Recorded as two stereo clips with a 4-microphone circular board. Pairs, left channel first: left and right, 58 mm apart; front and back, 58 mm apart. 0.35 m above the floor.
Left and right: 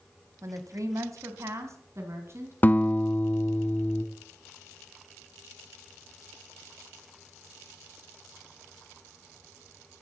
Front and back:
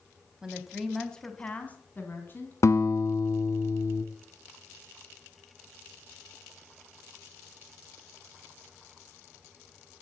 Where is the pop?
No pop in this recording.